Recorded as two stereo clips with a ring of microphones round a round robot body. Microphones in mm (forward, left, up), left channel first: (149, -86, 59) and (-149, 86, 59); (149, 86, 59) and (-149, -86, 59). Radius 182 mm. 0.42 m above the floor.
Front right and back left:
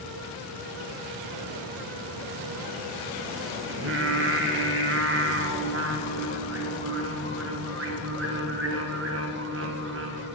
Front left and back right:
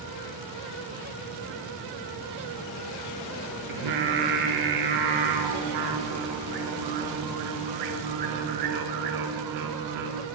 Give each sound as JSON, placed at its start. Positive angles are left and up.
{"t": 3.7, "sound": "singing", "azimuth_deg": -160, "distance_m": 0.8}